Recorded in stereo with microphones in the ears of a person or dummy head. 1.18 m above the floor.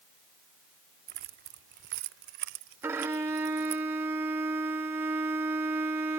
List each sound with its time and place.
1.1 s keys jangling: 40° right (ahead or behind); by 3.8 s 85° right
2.8 s a violin: 15° right (ahead or behind)